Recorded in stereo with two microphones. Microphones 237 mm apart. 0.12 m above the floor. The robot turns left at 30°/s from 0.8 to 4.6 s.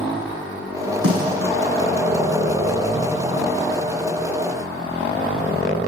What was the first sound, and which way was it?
A snare drum, 70° right (ahead or behind).